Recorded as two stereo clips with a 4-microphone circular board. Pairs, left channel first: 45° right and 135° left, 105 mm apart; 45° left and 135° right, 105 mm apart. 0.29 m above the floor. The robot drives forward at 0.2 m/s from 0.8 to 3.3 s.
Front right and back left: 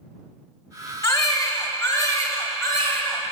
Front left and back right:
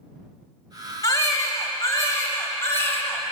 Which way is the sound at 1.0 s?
Straight ahead.